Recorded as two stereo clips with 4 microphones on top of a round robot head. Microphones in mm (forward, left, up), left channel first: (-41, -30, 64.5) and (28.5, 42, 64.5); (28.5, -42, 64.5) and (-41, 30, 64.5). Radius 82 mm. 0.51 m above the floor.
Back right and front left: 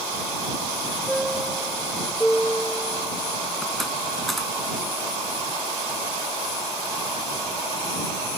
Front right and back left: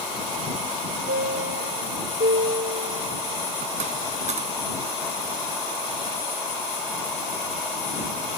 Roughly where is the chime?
Behind left.